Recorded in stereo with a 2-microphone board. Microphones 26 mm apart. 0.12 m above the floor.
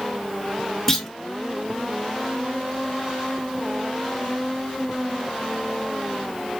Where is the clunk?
15° left (ahead or behind), 0.5 m.